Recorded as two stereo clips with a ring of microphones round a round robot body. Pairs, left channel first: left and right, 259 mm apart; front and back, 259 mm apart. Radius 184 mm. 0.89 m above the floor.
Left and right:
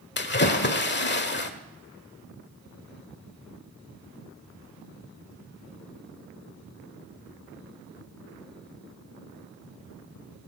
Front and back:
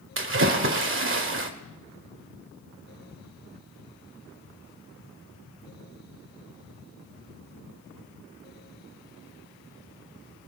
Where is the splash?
140° left, 1.4 m.